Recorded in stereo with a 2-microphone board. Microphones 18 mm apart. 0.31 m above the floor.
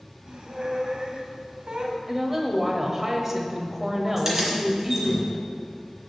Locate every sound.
0.3 s a squeak: 60° right (ahead or behind), 1.0 m
2.1 s a woman speaking: 25° right (ahead or behind), 1.2 m
4.2 s keys jangling: 20° right (ahead or behind), 2.5 m